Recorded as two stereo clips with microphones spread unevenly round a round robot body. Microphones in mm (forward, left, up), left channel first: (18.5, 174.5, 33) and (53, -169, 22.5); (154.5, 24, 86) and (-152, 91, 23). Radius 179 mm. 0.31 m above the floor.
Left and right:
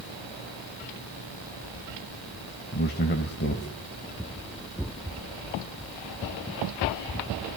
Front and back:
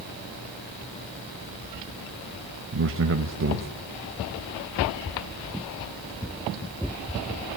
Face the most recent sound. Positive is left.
turn(degrees=150)